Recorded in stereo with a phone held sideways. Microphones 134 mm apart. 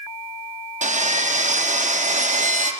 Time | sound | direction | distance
0.8 | sawing | 65° right (ahead or behind) | 0.5 m